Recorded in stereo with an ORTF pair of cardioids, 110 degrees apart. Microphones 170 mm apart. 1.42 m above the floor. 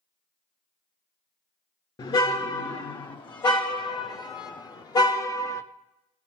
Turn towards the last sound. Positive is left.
turn(degrees=20)